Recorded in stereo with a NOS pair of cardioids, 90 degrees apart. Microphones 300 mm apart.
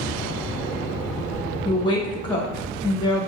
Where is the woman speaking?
15° left, 1.2 m.